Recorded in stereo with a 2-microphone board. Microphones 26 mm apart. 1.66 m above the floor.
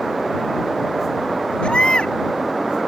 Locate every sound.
1.6 s a baby crying: 50° left (ahead or behind)